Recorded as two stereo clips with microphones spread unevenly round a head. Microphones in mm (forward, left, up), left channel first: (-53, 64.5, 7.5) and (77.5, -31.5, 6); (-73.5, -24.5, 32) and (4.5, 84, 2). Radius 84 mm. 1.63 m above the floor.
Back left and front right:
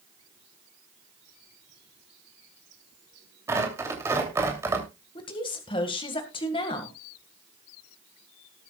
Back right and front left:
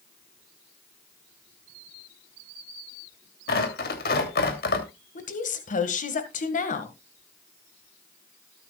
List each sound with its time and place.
3.5 s tearing paper: 110° right, 3 m
5.2 s a woman speaking: 150° right, 1.8 m